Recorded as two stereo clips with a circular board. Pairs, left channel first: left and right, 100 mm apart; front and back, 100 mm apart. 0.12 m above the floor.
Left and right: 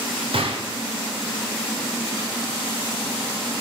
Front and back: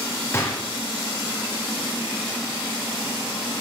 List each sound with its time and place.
0.3 s a gunshot: 65° right, 4 m